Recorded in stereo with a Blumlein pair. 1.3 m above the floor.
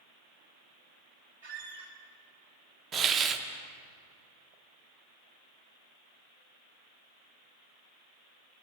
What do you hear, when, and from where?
1.4 s a squeak: 55° right, 2.5 m
2.9 s a hiss: 25° right, 0.7 m